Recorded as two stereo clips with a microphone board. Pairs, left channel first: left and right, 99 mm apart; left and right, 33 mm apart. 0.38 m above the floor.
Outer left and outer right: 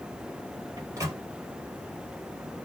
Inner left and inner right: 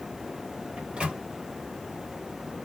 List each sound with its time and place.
0.8 s a microwave: 30° right (ahead or behind), 1.4 m